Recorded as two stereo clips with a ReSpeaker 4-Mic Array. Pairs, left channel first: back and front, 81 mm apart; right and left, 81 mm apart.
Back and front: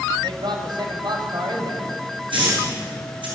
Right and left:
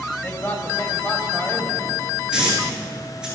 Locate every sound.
0.2 s a man speaking: 25° right, 5 m
2.3 s a hiss: 10° left, 9.5 m